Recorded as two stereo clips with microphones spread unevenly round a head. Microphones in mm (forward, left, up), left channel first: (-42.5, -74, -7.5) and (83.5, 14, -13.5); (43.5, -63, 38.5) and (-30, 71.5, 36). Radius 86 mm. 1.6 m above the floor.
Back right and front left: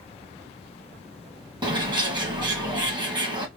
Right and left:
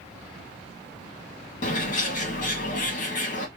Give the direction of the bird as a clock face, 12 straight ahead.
1 o'clock.